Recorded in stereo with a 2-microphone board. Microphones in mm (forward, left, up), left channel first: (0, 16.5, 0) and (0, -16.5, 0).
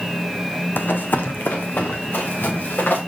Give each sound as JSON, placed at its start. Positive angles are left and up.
{"t": 0.8, "sound": "running footsteps", "side_deg": 75, "distance_m": 0.8}